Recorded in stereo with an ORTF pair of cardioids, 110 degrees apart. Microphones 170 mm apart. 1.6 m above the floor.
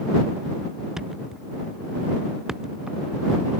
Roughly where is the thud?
Ahead.